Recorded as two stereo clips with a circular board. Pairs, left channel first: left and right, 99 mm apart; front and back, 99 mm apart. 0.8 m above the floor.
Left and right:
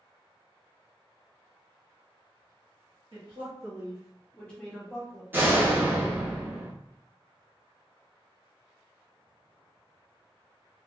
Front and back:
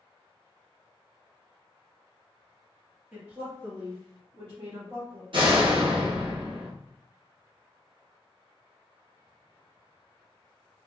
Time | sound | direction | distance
3.1 | a woman speaking | 105° right | 1.0 m
5.3 | a door slam | 155° right | 0.6 m